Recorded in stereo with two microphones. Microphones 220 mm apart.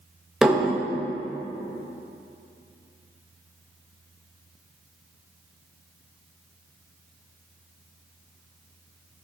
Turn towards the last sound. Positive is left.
turn(degrees=0)  # may be behind; listen again after turning